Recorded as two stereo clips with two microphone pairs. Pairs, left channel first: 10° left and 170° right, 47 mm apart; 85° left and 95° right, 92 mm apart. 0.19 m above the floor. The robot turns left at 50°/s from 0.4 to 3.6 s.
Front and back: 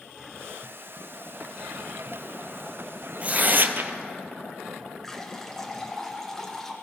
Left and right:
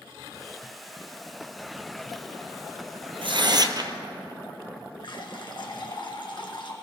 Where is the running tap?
85° left, 1.4 m.